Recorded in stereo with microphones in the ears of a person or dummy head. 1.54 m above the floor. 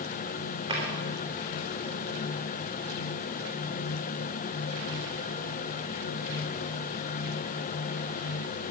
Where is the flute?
No flute in this recording.